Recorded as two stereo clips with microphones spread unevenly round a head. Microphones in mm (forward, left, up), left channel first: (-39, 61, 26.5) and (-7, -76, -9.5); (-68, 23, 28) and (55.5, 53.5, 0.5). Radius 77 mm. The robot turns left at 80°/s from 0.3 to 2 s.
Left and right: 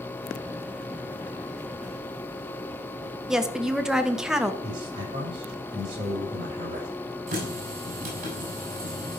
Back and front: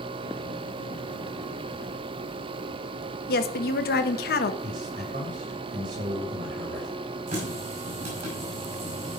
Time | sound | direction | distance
3.3 | a woman speaking | 160° right | 1.1 m
4.6 | a man speaking | 15° right | 6 m
7.3 | a running tap | 30° right | 5.5 m